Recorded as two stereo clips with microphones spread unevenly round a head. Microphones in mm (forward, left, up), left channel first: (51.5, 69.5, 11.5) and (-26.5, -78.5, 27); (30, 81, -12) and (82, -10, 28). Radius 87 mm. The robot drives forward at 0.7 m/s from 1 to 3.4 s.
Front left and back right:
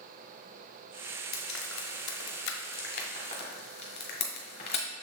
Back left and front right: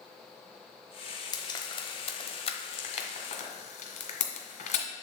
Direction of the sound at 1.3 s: 60° left.